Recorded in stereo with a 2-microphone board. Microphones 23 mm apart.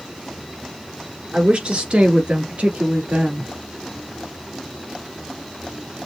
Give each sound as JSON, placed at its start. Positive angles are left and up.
{"t": 1.3, "sound": "a woman speaking", "side_deg": -50, "distance_m": 2.0}